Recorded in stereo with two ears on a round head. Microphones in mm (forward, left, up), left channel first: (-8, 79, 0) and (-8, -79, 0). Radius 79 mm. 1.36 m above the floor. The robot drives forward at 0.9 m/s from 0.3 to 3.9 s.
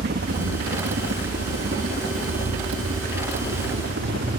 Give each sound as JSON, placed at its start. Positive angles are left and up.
{"t": 0.0, "sound": "a helicopter", "side_deg": -65}